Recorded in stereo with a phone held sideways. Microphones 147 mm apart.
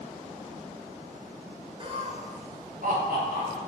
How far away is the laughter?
About 0.5 m.